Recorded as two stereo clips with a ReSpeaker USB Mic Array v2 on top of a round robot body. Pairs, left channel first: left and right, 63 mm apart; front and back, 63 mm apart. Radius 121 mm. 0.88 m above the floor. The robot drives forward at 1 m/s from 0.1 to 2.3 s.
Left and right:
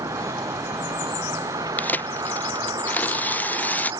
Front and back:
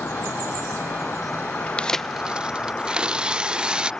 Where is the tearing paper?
55° left; by 3.9 s 120° left.